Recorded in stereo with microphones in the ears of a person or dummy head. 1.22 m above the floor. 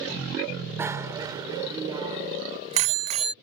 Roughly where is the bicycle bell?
Centre.